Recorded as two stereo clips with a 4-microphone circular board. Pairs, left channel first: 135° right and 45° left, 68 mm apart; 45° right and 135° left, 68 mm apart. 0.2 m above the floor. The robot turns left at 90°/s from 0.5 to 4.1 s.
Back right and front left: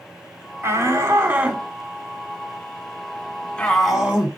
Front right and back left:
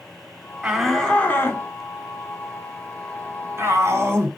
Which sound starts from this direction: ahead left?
A shout, at 0.6 s.